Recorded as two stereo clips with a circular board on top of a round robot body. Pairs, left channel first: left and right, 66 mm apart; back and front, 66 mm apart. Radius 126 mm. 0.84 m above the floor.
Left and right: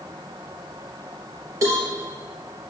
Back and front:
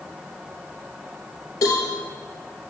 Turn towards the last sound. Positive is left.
turn(degrees=-135)